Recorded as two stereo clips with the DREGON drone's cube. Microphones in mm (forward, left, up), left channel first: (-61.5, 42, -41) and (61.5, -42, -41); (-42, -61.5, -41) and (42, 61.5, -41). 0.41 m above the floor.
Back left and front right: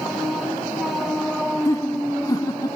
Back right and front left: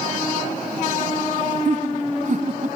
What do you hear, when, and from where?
1.6 s laughter: 80° left; by 2.8 s 85° left